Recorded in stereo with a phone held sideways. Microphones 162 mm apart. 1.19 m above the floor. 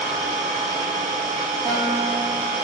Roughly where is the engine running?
Right.